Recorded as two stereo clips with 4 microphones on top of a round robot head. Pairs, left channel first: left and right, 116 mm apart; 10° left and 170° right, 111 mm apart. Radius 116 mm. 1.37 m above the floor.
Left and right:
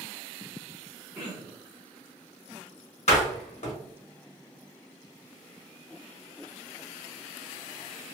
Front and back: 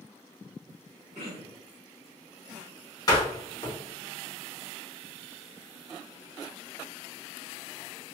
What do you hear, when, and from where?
1.1 s throat clearing: 145° right, 0.6 m
3.1 s a door slam: 65° left, 1.2 m